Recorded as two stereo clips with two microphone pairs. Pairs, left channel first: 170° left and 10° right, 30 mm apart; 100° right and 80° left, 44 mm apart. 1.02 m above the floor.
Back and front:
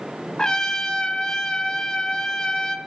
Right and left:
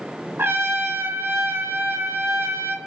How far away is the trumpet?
About 2.5 m.